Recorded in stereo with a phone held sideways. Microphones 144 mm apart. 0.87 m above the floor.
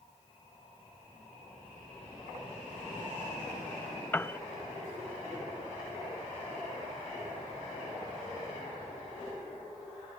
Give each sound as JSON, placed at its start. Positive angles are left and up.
{"t": 4.1, "sound": "a piano", "side_deg": 15}